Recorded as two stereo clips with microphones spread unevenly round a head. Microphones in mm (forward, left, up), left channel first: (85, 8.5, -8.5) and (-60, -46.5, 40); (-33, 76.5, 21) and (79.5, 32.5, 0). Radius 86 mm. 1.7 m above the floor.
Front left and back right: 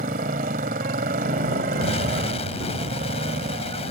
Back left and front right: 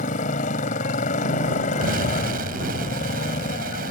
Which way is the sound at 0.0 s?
165° left.